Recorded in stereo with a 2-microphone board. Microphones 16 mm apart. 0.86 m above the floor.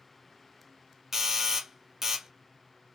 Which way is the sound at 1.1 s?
25° right (ahead or behind).